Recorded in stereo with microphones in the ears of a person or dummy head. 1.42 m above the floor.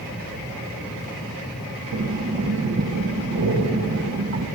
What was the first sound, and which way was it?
Breathing, 55° right (ahead or behind).